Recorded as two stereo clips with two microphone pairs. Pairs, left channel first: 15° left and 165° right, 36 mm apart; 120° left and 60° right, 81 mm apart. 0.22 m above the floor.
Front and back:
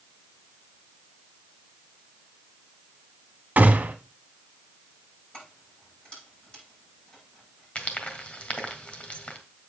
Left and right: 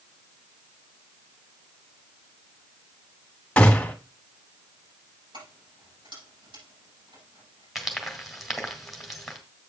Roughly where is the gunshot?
Behind.